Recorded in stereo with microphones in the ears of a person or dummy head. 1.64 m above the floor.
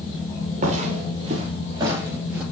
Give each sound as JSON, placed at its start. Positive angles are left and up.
{"t": 0.6, "sound": "footsteps", "side_deg": -40, "distance_m": 2.5}